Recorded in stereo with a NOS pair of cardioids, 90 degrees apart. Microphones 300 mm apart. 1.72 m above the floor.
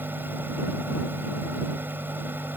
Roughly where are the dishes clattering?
I don't hear dishes clattering.